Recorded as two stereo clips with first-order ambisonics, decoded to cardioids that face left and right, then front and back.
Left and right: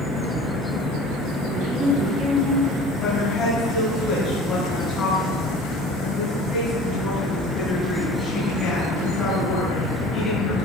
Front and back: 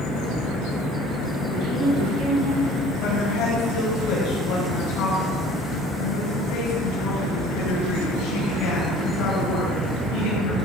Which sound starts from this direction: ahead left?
A woman speaking, at 3.0 s.